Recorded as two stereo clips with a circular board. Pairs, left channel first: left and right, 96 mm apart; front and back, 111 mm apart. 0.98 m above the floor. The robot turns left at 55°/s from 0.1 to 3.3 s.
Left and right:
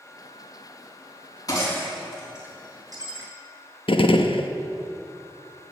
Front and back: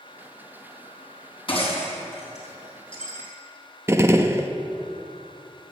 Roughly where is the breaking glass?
Ahead left.